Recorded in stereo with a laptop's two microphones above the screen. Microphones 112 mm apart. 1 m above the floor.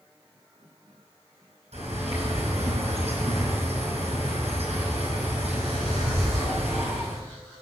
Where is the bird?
70° right (ahead or behind), 4.5 m.